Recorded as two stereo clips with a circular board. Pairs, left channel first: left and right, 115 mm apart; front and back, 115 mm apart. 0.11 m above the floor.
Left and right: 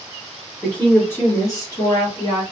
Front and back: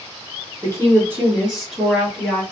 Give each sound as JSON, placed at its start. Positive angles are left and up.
{"t": 0.6, "sound": "a woman speaking", "azimuth_deg": 160, "distance_m": 1.3}